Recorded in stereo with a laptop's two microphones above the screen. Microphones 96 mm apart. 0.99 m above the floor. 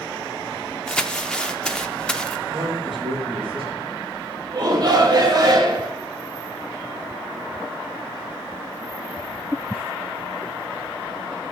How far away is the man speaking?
About 5 m.